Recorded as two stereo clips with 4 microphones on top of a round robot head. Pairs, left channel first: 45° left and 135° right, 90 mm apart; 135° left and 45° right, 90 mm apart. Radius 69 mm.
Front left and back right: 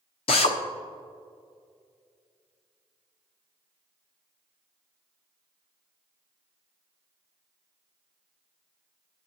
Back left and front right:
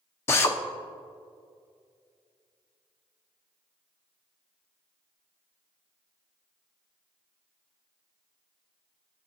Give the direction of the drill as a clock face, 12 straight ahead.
10 o'clock.